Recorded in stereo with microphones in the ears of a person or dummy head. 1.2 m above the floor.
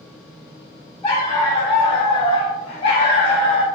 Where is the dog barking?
25° left (ahead or behind), 1.4 m; by 3.7 s centre (ahead or behind), 0.8 m.